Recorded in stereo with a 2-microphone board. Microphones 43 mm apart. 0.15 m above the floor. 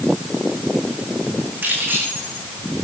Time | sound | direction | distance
1.6 | keys jangling | 65° right (ahead or behind) | 7 m